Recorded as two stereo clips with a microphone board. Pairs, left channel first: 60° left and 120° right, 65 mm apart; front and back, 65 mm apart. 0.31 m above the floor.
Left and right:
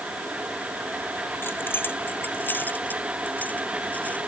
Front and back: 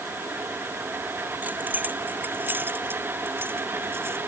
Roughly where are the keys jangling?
Behind left.